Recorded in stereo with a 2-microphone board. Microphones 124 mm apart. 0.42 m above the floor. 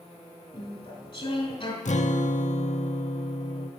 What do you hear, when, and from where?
0.5 s chewing: 45° left (ahead or behind), 2.5 m
1.9 s a guitar: 70° left (ahead or behind), 0.6 m